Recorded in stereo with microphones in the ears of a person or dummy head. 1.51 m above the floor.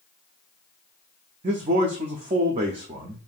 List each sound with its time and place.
1.4 s a man speaking: 30° right (ahead or behind), 0.6 m